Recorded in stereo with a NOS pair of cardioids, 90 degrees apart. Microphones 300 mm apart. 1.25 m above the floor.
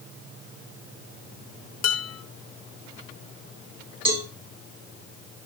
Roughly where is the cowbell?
Ahead.